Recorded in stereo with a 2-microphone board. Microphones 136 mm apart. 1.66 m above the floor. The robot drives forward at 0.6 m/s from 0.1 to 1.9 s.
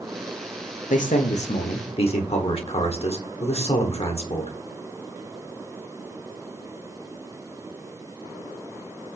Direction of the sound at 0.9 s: 75° left (ahead or behind).